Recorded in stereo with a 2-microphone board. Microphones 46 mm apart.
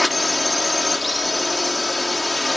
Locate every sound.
0.0 s a drone: centre (ahead or behind)